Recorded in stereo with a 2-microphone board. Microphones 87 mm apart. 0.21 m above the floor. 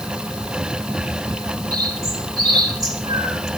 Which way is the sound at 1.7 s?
40° right (ahead or behind).